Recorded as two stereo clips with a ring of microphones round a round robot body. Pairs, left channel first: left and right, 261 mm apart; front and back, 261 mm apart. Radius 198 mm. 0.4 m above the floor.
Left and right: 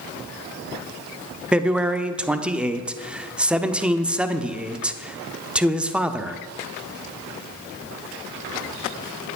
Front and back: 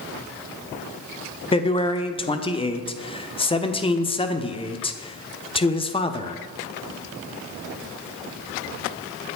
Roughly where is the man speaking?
Ahead.